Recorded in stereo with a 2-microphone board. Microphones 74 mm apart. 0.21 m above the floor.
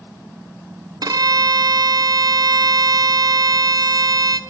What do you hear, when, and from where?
1.0 s a violin: 60° right (ahead or behind), 1.2 m